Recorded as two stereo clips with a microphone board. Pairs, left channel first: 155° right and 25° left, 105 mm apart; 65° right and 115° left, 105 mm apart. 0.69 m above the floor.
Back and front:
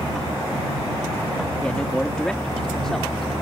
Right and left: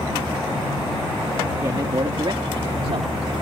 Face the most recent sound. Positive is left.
turn(degrees=115)